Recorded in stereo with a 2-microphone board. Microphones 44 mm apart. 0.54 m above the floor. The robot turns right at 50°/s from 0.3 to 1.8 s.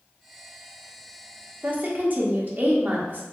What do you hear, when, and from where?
1.6 s a woman speaking: 45° right (ahead or behind), 0.8 m